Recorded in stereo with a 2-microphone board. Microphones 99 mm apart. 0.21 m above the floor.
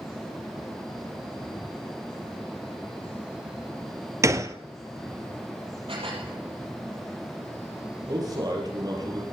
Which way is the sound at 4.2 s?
35° right (ahead or behind).